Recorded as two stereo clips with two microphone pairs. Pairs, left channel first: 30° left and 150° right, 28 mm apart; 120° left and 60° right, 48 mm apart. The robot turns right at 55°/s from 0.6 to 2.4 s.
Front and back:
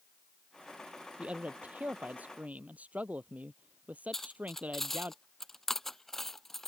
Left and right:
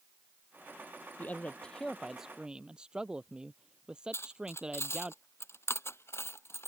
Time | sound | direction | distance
1.2 | a man speaking | 165° left | ?
4.1 | cutlery clinking | 110° left | ?